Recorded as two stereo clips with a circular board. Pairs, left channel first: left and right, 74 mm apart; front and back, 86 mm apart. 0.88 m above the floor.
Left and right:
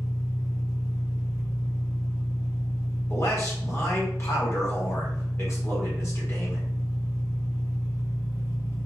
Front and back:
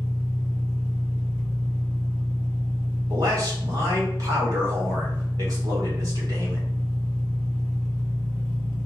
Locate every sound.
0.0 s an engine running: 55° left, 1.8 m
3.1 s a man speaking: 140° left, 2.0 m